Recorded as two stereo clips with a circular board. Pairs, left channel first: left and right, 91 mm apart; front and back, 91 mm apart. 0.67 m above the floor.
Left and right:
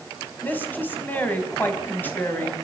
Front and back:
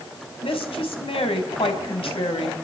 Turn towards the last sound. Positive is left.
turn(degrees=20)